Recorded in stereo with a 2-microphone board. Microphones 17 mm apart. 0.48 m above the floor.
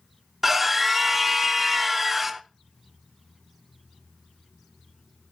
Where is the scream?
15° right (ahead or behind), 0.9 m.